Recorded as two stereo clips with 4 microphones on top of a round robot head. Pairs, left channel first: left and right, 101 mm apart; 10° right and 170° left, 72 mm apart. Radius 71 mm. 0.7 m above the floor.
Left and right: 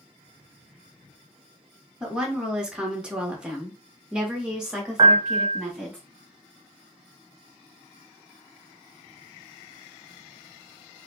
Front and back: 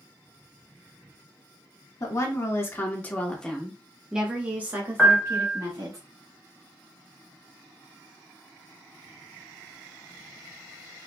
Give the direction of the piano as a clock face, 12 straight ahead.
3 o'clock.